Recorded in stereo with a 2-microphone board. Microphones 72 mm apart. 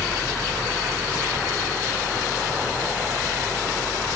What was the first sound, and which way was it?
Only background noise.